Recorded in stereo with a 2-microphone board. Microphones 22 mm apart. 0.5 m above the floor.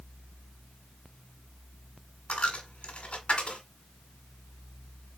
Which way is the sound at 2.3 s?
75° left (ahead or behind).